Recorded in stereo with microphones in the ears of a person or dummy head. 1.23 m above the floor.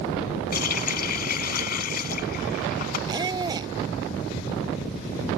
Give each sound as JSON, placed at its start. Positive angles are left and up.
{"t": 0.5, "sound": "a running tap", "side_deg": 60}
{"t": 3.1, "sound": "a squeak", "side_deg": -25}